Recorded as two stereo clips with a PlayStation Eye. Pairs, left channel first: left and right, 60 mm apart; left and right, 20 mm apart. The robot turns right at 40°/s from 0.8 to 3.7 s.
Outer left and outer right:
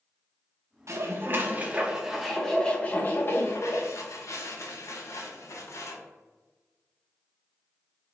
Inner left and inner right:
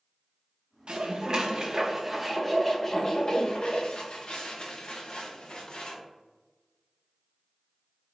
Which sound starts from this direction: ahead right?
Dishes clattering, at 0.9 s.